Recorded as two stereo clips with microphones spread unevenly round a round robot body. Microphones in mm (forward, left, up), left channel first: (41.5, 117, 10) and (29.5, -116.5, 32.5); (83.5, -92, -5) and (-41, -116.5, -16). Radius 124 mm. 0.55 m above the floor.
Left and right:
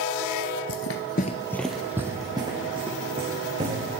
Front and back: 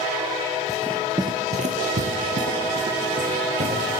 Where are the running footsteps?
65° left, 0.8 m; by 3.9 s 160° right, 3.5 m.